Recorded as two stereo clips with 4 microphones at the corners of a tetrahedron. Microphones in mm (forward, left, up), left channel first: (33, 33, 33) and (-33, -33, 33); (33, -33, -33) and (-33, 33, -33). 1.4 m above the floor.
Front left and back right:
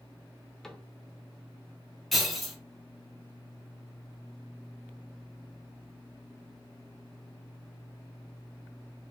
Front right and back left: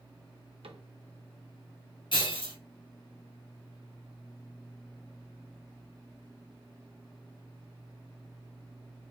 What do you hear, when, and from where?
0.6 s a cupboard door: 130° left, 0.6 m
2.1 s breaking glass: 45° right, 1.3 m